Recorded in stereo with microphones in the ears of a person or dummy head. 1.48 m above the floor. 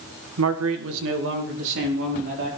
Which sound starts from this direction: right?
A man speaking, at 0.4 s.